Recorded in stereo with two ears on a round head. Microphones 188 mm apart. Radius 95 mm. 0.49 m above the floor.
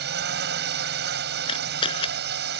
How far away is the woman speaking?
No woman speaking in this recording.